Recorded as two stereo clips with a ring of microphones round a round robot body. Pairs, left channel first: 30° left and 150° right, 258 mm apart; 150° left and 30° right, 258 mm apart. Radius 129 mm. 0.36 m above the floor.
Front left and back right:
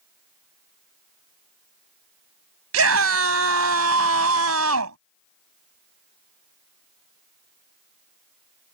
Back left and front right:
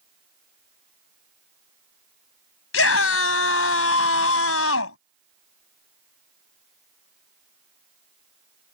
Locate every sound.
2.7 s a scream: 175° right